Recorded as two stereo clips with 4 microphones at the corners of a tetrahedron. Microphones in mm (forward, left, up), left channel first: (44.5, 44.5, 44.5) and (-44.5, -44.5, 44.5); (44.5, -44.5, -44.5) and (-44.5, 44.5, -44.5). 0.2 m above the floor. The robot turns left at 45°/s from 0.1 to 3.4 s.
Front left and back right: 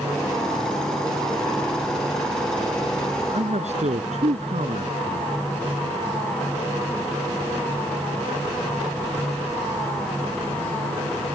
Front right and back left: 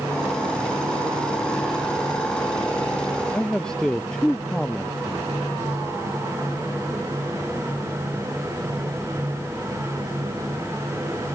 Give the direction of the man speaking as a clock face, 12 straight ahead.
4 o'clock.